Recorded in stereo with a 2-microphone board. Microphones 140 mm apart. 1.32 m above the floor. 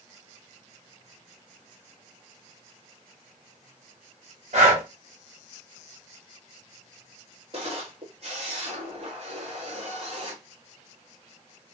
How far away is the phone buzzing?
No phone buzzing in this recording.